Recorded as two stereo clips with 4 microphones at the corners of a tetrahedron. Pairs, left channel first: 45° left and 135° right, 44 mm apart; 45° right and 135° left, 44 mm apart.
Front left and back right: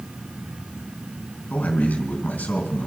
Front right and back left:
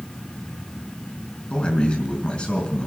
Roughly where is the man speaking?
Ahead.